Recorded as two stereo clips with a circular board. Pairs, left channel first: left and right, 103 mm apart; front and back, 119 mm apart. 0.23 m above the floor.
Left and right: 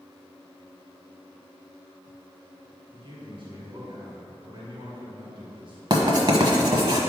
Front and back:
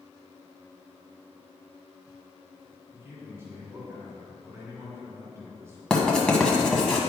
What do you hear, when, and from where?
2.9 s a man speaking: 115° right, 2.0 m
5.9 s writing: 80° right, 1.2 m